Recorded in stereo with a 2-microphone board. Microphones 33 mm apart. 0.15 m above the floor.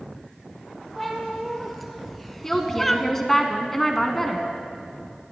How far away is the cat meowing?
About 2.5 m.